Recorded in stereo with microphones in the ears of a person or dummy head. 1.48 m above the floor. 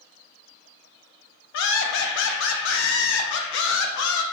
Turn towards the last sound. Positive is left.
turn(degrees=70)  # may be behind; listen again after turning